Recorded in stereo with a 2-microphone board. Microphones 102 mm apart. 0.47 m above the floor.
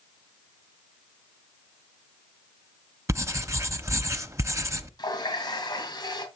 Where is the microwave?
I don't hear a microwave.